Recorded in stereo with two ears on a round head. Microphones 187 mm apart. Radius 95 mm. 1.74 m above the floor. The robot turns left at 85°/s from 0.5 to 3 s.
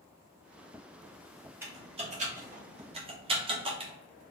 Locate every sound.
1.6 s typing on a keyboard: 10° right (ahead or behind), 1.0 m; by 3.9 s 25° right (ahead or behind), 1.0 m